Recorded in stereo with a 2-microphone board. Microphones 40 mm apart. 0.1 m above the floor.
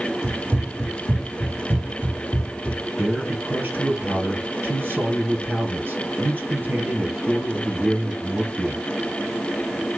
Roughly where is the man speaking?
Right.